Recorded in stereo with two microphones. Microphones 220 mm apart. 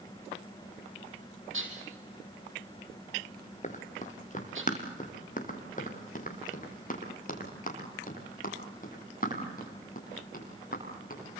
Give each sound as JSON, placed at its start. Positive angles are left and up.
{"t": 1.5, "sound": "dishes clattering", "side_deg": -65, "distance_m": 4.5}
{"t": 3.6, "sound": "running footsteps", "side_deg": 35, "distance_m": 3.5}